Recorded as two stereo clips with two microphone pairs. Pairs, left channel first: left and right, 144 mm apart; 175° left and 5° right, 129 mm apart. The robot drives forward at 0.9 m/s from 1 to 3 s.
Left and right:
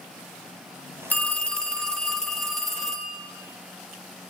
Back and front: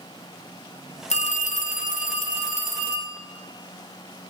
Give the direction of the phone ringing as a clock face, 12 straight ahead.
6 o'clock.